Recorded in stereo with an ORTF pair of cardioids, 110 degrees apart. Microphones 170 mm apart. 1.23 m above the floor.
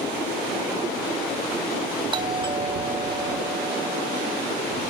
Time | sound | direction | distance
2.1 | a doorbell | 30° right | ?